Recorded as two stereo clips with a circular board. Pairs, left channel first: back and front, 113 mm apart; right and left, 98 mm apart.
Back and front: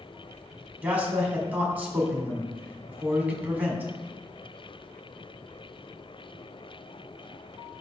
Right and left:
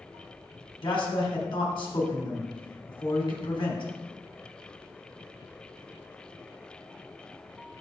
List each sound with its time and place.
0.8 s a man speaking: 75° right, 1.7 m